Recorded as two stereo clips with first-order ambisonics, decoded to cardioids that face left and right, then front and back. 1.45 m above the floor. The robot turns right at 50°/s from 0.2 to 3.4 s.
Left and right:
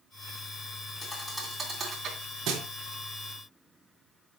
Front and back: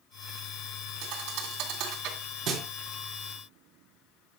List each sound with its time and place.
1.0 s a thud: 150° left, 3 m; by 2.7 s 125° right, 3 m